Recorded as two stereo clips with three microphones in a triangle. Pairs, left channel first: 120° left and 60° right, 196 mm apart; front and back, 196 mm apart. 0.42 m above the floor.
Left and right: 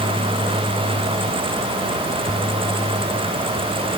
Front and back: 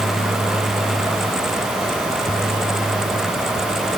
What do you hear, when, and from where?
Only background noise.